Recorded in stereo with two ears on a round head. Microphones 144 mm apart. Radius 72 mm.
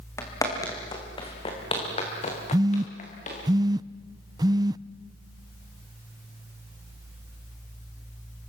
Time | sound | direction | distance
0.2 | footsteps | 20° left (ahead or behind) | 5 m
2.5 | a phone buzzing | 25° right (ahead or behind) | 0.5 m